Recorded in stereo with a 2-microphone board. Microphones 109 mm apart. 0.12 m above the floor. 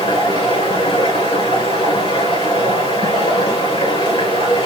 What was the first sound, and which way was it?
Running water, 55° left (ahead or behind).